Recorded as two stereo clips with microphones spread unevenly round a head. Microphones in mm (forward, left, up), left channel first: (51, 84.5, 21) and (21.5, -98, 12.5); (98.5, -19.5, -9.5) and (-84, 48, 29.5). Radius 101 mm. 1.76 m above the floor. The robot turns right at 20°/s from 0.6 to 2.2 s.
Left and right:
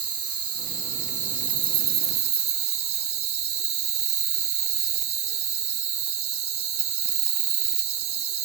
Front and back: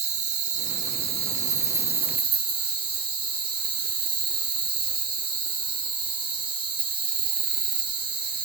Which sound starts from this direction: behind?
An insect, at 0.0 s.